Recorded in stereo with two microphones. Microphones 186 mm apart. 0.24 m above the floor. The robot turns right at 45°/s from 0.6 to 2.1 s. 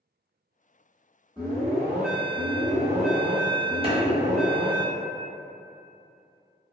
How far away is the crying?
No crying in this recording.